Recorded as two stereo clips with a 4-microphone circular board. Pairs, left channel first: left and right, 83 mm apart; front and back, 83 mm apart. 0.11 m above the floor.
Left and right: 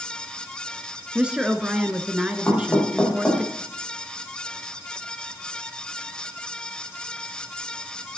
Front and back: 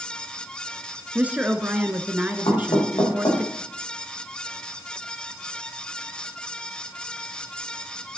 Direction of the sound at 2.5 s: 15° left.